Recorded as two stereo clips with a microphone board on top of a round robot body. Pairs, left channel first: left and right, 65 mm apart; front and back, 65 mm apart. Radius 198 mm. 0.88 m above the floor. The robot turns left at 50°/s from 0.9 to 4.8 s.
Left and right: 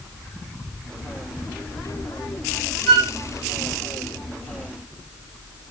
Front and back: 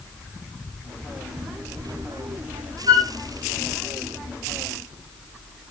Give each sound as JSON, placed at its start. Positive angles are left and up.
{"t": 2.9, "sound": "a flute", "azimuth_deg": -175, "distance_m": 1.6}